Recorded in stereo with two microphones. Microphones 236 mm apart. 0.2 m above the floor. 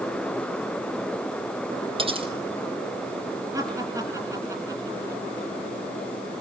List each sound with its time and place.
2.0 s cutlery clinking: 25° right (ahead or behind), 3.5 m
3.5 s laughter: 10° right (ahead or behind), 3.5 m